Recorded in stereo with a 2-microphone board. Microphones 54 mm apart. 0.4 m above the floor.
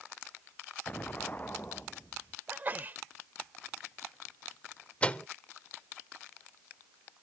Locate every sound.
0.9 s an explosion: 30° left (ahead or behind)
2.5 s a sneeze: 35° right (ahead or behind)
5.0 s a microwave: 25° left (ahead or behind)